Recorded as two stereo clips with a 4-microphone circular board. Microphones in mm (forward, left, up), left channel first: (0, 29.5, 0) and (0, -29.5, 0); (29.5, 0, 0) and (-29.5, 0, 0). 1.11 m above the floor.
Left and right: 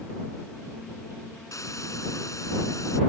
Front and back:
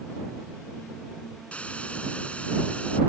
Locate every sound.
1.5 s a hiss: 70° left